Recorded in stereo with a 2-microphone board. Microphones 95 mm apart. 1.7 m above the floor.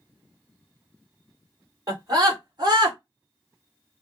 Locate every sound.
1.9 s a scream: 40° right (ahead or behind), 2.5 m; by 3.0 s 50° right (ahead or behind), 1.8 m